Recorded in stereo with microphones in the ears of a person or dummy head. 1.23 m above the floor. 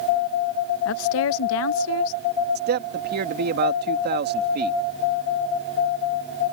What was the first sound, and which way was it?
A woman speaking, 75° left (ahead or behind).